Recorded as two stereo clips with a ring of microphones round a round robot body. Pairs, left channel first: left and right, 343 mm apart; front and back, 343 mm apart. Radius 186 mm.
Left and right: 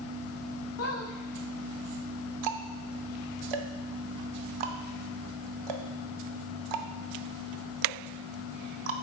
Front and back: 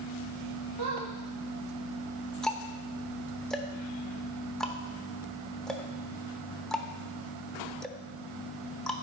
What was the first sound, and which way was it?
A squeak, 140° left.